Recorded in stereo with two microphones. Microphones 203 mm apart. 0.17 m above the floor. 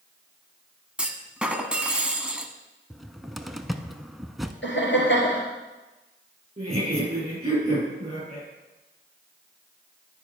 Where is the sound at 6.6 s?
30° right (ahead or behind), 5 m.